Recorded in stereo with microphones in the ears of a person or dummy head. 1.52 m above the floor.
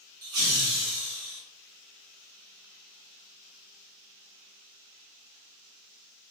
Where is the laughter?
90° right, 1.2 m; by 1.4 s 70° right (ahead or behind), 1.7 m.